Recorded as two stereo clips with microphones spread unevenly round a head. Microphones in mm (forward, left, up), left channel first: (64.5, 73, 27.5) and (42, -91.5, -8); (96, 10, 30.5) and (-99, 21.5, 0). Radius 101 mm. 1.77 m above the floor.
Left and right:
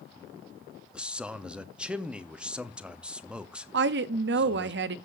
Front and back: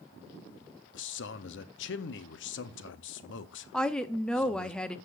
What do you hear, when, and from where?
0.9 s a man speaking: 10° right, 0.7 m
3.7 s a woman speaking: 85° right, 0.6 m